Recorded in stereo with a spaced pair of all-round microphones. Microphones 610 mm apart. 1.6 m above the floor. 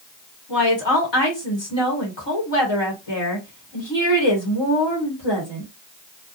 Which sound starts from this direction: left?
A woman speaking, at 0.5 s.